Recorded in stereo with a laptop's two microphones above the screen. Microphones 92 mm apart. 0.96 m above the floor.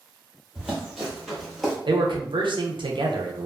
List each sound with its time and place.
0.6 s running footsteps: centre (ahead or behind), 1.5 m
1.9 s a man speaking: 65° right (ahead or behind), 0.6 m